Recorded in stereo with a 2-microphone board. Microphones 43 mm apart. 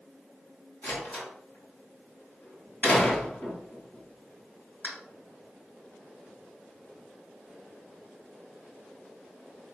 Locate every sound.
0.8 s a door slam: 40° left (ahead or behind), 3 m